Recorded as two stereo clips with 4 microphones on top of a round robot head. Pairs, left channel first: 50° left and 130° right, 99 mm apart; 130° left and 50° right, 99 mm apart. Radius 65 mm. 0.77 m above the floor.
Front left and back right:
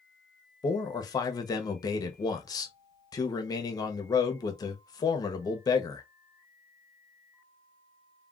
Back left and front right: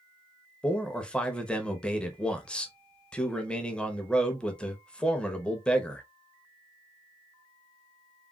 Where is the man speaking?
55° left, 0.8 m.